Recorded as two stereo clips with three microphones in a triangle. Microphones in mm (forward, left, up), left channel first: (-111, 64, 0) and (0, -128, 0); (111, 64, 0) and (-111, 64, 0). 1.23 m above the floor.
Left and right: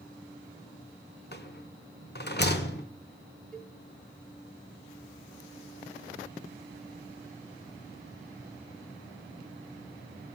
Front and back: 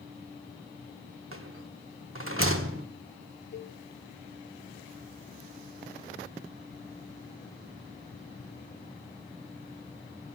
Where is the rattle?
160° left, 1.0 m.